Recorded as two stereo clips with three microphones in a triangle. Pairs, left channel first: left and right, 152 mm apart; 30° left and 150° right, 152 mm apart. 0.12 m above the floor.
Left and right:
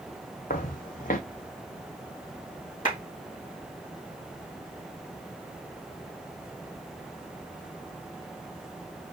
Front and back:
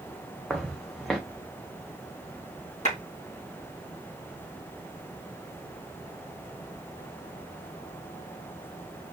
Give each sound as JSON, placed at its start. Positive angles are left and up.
{"t": 0.5, "sound": "footsteps", "azimuth_deg": 120, "distance_m": 0.6}
{"t": 2.9, "sound": "a clap", "azimuth_deg": 65, "distance_m": 3.5}